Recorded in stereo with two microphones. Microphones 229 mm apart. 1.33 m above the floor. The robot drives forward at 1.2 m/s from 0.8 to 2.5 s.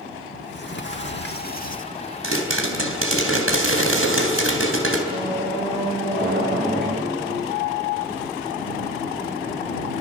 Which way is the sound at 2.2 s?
75° right (ahead or behind).